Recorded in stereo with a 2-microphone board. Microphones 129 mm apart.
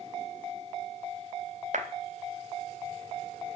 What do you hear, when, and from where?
1.7 s a clap: 70° right (ahead or behind), 3 m